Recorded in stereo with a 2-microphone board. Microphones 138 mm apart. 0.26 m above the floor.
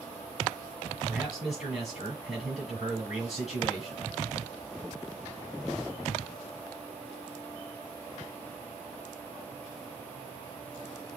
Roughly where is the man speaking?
Centre.